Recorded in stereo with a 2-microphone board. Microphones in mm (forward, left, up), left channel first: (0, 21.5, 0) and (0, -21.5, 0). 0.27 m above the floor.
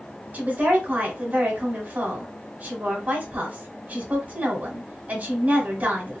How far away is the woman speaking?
About 1.5 m.